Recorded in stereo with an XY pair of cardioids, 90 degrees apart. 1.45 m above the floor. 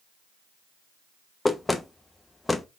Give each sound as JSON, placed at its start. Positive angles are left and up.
{"t": 1.4, "sound": "knocking", "azimuth_deg": 15, "distance_m": 0.7}